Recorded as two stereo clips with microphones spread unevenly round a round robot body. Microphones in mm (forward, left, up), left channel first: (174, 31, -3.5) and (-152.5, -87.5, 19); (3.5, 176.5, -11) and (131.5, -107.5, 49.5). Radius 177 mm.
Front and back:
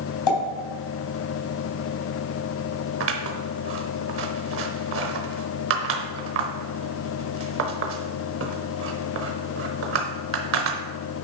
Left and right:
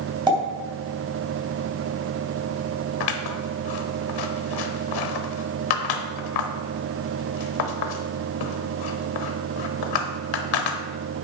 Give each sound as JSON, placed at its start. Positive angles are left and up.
{"t": 0.3, "sound": "a pop", "azimuth_deg": 10, "distance_m": 3.5}
{"t": 3.0, "sound": "scissors", "azimuth_deg": 145, "distance_m": 0.8}